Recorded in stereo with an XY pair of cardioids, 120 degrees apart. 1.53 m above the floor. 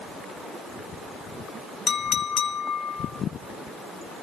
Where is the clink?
65° left, 1.3 m.